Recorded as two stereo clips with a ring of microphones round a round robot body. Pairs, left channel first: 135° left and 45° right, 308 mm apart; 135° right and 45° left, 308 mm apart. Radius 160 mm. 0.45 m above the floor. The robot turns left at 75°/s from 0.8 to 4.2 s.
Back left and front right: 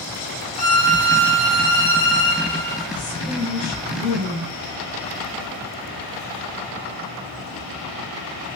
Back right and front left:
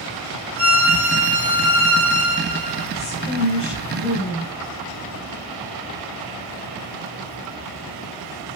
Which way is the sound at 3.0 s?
130° right.